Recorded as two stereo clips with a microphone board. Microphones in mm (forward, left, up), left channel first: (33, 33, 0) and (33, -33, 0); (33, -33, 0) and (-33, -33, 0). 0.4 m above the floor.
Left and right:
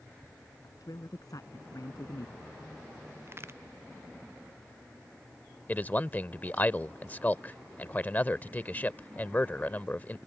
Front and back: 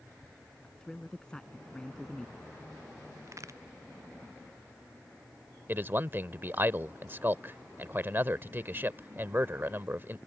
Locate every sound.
0.6 s a man speaking: 80° left
3.3 s a crack: 140° right
5.7 s a man speaking: 140° left